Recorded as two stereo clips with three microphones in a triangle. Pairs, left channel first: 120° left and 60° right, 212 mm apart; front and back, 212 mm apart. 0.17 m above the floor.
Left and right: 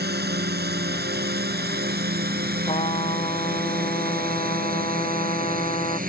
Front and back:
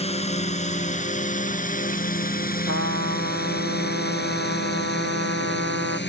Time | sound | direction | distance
0.0 | a drone | 50° right | ?
2.7 | a trumpet | straight behind | ?